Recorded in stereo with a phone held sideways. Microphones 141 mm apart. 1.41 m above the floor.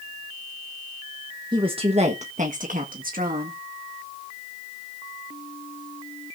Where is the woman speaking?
30° right (ahead or behind), 1.2 m; by 3.6 s 80° right, 2 m.